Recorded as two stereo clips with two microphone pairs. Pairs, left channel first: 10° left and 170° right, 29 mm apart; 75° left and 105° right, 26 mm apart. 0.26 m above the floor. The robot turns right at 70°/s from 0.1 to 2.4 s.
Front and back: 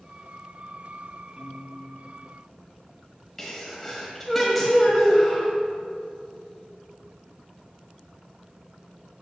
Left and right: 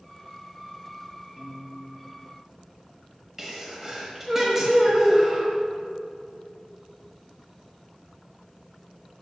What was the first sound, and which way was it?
A piano, 130° right.